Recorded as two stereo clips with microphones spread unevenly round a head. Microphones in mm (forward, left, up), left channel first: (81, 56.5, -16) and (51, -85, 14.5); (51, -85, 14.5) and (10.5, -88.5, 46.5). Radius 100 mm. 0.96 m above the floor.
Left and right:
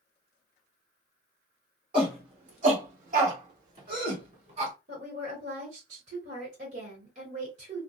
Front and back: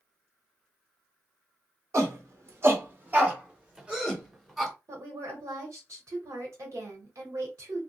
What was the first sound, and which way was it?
A shout, 160° right.